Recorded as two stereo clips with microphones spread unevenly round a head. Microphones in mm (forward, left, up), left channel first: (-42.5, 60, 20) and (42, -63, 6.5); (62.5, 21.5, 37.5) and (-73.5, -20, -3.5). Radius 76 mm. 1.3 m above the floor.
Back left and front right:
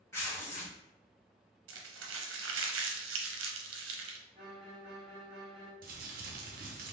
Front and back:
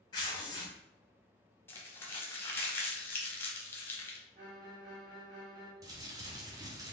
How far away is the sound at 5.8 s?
About 0.6 m.